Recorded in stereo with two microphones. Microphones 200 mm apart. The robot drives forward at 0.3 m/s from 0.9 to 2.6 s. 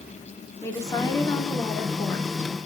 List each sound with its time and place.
0.6 s a woman speaking: 15° left (ahead or behind), 1.9 m